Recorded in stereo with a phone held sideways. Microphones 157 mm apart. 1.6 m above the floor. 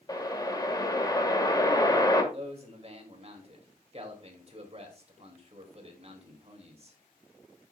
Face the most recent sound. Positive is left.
turn(degrees=-40)  # may be behind; listen again after turning